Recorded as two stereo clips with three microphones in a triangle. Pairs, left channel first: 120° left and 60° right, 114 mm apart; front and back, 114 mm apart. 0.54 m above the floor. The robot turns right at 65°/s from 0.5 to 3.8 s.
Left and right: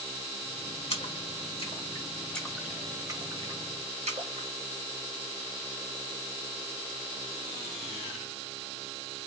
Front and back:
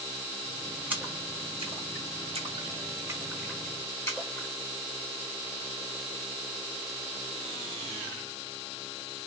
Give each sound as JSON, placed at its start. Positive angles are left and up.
{"t": 0.9, "sound": "a splash", "azimuth_deg": 105, "distance_m": 1.4}